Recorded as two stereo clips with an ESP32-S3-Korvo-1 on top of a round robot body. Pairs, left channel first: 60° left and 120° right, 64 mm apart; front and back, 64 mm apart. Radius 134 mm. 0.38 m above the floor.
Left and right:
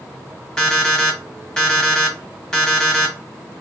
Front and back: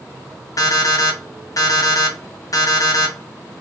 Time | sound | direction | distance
0.6 | an alarm clock | 20° right | 1.3 m